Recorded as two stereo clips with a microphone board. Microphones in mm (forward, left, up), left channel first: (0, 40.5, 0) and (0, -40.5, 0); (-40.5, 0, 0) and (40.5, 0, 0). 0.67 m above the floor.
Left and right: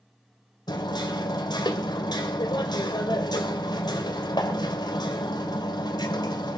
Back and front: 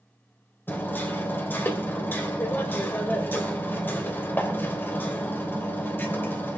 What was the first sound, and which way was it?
Hammering, 115° left.